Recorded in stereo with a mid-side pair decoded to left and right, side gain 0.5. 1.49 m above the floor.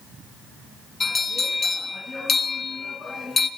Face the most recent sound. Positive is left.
turn(degrees=25)